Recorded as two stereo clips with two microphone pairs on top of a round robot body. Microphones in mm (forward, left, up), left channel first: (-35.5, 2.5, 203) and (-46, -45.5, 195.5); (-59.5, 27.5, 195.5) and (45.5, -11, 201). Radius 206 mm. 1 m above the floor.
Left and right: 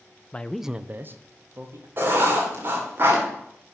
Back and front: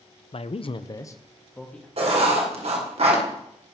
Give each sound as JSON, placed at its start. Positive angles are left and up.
{"t": 0.3, "sound": "a man speaking", "azimuth_deg": 145, "distance_m": 0.9}
{"t": 2.0, "sound": "writing", "azimuth_deg": -55, "distance_m": 2.0}